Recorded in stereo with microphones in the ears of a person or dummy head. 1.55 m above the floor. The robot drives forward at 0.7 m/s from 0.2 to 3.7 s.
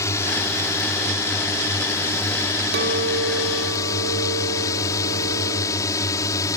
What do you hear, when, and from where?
0.0 s a drone: 20° left (ahead or behind)
2.7 s a clink: 60° right (ahead or behind); by 6.5 s 70° right (ahead or behind)